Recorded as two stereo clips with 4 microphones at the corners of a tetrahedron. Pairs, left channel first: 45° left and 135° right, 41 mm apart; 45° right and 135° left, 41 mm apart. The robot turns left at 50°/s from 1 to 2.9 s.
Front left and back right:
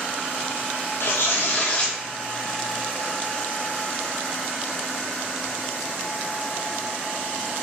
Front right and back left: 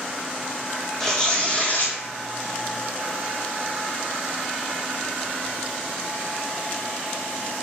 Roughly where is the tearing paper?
Ahead left.